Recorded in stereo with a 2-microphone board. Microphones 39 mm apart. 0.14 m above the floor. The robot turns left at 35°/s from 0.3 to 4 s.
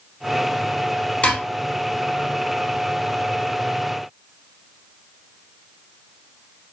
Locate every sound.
1.2 s dishes clattering: 30° left (ahead or behind), 1.6 m; by 1.4 s 25° left (ahead or behind), 1.6 m